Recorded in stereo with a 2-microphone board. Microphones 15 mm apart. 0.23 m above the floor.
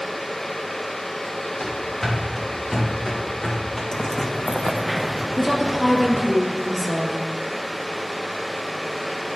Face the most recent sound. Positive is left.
turn(degrees=5)  # may be behind; listen again after turning